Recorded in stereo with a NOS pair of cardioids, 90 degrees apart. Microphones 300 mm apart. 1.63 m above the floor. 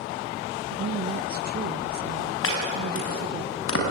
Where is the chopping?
45° left, 6 m.